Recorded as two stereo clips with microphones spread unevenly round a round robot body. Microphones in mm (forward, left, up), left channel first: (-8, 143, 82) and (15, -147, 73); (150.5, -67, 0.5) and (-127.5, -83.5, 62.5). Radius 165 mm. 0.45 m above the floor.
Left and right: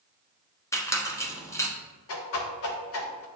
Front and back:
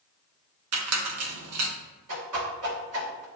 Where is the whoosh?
140° left, 0.6 m.